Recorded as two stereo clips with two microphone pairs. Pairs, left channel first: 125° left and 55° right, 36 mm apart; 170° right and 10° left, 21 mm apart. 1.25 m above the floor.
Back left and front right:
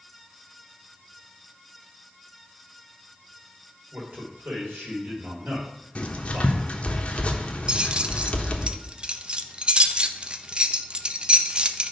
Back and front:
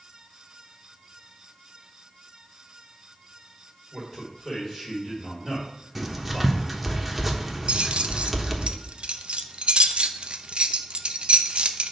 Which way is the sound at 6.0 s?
90° left.